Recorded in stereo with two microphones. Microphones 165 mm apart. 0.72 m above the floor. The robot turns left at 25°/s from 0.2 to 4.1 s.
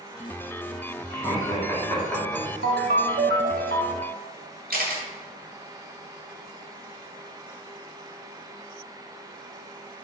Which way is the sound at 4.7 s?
70° right (ahead or behind).